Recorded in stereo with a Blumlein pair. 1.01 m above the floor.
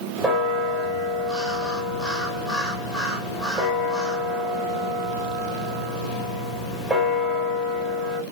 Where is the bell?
10° right, 1.2 m.